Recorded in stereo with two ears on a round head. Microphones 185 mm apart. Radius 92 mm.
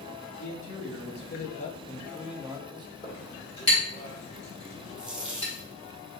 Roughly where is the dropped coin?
Centre.